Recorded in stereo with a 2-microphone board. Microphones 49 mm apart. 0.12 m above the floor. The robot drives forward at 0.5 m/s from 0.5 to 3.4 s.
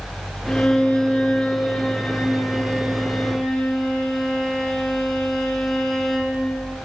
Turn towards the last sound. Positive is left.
turn(degrees=15)  # may be behind; listen again after turning